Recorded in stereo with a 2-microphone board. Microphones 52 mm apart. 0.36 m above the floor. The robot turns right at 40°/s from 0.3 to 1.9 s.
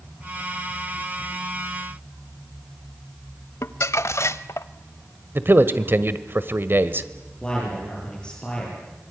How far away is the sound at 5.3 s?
About 1.2 m.